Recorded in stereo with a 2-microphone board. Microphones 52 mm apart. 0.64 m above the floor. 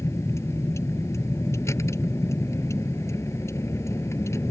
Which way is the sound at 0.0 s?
65° left (ahead or behind).